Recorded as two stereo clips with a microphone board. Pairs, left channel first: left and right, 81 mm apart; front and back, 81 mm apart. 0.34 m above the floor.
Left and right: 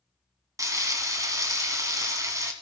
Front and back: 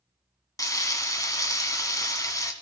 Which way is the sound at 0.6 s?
45° right.